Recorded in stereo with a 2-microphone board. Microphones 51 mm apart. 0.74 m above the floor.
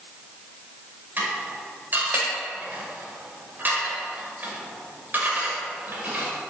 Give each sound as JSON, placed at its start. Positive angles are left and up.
{"t": 1.2, "sound": "dishes clattering", "side_deg": -40, "distance_m": 1.9}